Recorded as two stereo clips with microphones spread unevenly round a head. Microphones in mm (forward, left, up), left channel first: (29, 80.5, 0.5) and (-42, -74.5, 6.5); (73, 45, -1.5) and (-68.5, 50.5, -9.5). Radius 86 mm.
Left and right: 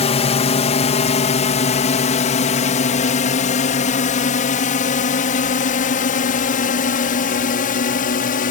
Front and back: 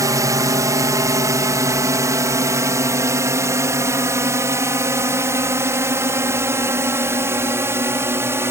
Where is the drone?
115° left; by 8.5 s 105° left.